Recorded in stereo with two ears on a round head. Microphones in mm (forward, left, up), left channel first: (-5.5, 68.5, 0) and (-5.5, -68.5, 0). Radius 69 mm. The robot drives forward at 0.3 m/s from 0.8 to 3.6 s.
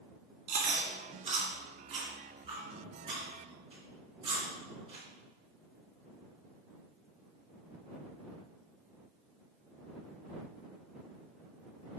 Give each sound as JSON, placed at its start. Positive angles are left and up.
{"t": 0.5, "sound": "chewing", "side_deg": -50, "distance_m": 2.0}